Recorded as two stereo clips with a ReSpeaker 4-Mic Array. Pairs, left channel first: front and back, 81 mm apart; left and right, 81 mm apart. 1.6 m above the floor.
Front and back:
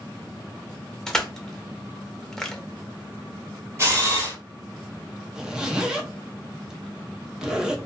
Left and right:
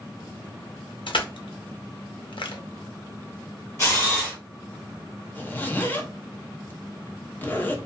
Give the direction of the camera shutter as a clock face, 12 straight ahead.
8 o'clock.